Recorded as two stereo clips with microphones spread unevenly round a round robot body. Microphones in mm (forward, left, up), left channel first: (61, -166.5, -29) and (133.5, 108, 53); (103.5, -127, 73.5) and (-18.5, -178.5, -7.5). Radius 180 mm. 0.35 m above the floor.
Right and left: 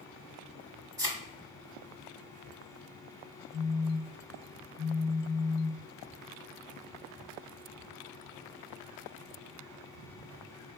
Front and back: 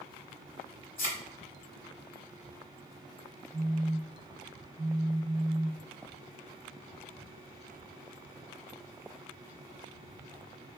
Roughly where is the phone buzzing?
Behind.